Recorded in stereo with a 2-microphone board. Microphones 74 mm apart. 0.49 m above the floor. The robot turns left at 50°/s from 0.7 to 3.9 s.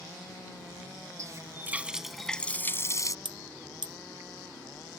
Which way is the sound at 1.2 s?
135° right.